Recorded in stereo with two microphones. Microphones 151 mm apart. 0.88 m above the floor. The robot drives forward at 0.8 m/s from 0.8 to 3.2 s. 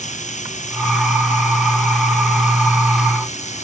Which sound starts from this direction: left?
Running water, at 0.0 s.